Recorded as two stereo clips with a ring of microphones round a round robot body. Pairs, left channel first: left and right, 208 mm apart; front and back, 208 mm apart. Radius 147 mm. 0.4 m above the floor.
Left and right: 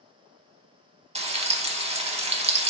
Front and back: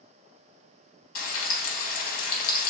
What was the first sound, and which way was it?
Frying, 30° right.